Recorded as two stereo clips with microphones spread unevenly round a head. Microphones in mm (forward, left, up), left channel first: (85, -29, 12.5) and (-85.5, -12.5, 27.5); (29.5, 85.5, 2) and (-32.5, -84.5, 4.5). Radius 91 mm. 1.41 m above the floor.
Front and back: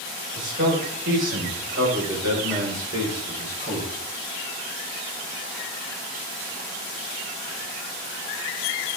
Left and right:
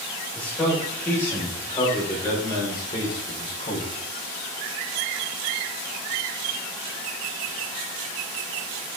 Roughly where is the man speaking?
Behind left.